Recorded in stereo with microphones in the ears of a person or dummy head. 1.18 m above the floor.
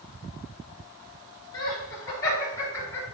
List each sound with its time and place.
1.5 s laughter: 20° left (ahead or behind), 3.5 m; by 3.0 s 15° left (ahead or behind), 3 m